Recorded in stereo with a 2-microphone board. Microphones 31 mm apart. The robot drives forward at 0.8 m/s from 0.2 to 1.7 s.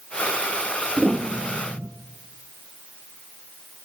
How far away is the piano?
About 1.3 m.